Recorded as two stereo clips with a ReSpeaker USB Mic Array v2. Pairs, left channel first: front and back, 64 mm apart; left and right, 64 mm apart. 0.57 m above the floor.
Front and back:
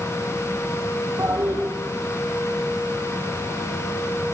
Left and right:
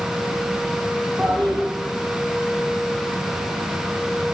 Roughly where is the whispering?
I don't hear whispering.